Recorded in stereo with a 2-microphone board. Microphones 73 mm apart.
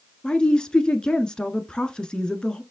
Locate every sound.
0.2 s a woman speaking: 10° left (ahead or behind), 1.3 m